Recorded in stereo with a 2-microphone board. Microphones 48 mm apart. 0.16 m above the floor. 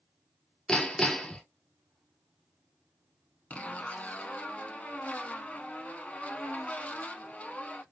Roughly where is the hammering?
Centre.